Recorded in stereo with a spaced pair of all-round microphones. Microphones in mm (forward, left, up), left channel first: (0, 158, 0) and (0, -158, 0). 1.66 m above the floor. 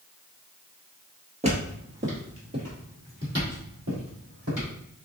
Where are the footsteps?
20° right (ahead or behind), 1.8 m; by 4.7 s 70° right (ahead or behind), 4.5 m.